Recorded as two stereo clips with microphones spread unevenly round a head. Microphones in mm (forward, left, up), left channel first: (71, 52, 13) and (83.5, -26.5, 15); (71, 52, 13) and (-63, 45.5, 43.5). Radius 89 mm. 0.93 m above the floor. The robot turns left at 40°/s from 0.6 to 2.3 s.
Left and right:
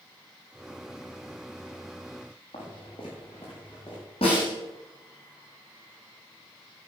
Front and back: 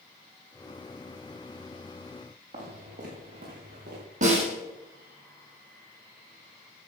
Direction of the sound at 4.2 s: 155° left.